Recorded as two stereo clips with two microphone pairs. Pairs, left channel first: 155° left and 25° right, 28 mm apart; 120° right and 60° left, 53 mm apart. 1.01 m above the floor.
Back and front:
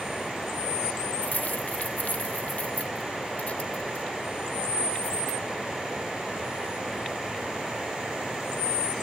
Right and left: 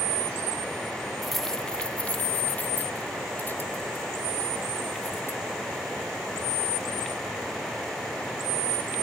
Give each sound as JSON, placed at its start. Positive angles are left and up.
{"t": 1.2, "sound": "keys jangling", "azimuth_deg": 145}